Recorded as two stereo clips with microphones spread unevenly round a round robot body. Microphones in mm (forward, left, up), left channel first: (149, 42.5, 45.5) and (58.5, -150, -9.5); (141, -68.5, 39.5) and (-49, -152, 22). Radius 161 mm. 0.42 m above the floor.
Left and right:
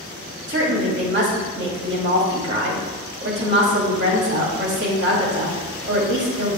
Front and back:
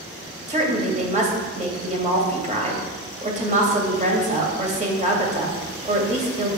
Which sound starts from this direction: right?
A woman speaking, at 0.5 s.